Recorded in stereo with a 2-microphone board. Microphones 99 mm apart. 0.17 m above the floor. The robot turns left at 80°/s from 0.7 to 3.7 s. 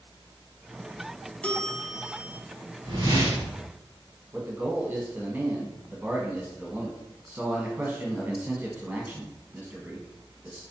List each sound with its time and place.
1.4 s a bell: 15° left (ahead or behind), 0.6 m; by 2.4 s 15° right (ahead or behind), 0.6 m
2.8 s a whoosh: 120° right, 1.4 m; by 3.6 s 175° left, 1.4 m
4.3 s a man speaking: 20° right (ahead or behind), 1.0 m